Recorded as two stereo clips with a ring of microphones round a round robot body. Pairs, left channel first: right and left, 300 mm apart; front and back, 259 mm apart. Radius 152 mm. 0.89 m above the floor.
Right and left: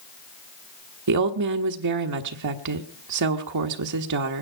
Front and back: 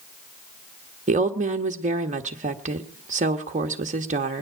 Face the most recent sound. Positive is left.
turn(degrees=120)